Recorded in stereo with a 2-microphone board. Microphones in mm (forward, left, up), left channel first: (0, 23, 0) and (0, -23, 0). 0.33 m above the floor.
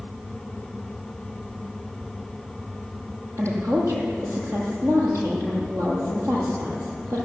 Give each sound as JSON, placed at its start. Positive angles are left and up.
{"t": 3.4, "sound": "a woman speaking", "side_deg": -80, "distance_m": 9.0}